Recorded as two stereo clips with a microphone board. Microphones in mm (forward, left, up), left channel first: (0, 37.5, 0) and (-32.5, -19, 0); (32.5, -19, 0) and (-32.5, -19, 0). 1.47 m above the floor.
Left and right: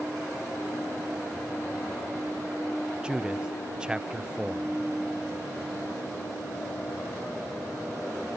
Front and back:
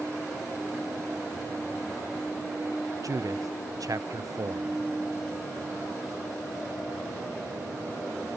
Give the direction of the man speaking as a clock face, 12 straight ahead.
7 o'clock.